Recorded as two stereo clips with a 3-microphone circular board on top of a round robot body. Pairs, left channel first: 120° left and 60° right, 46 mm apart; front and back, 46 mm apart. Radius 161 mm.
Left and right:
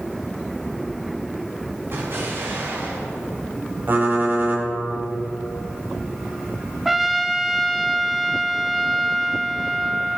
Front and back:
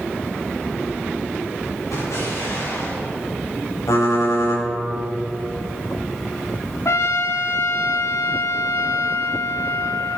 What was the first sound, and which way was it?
An explosion, 15° right.